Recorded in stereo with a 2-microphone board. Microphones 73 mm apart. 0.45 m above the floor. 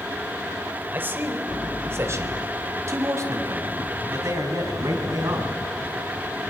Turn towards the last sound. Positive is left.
turn(degrees=-50)  # may be behind; listen again after turning